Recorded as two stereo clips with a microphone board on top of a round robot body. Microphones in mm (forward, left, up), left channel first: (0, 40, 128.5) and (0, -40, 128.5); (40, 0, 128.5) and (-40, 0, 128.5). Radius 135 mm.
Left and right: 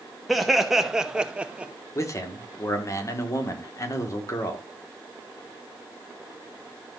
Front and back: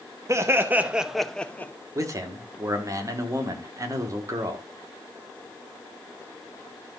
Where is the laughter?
Straight behind, 1.4 m; by 1.7 s 30° right, 1.3 m.